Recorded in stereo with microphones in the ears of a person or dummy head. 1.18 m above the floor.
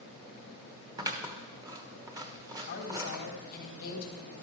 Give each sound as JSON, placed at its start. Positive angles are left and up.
{"t": 1.0, "sound": "scissors", "side_deg": -15, "distance_m": 1.1}
{"t": 2.7, "sound": "a woman speaking", "side_deg": 55, "distance_m": 3.5}